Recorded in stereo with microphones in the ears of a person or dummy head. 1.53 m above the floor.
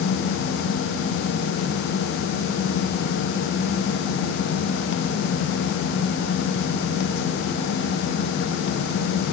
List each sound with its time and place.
Only background noise.